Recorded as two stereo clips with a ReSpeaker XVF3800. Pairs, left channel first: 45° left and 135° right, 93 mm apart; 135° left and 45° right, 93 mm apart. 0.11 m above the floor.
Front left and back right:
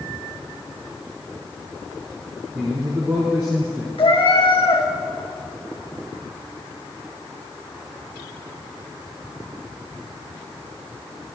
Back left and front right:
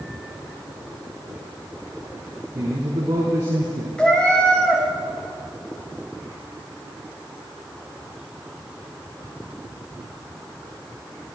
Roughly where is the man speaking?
Right.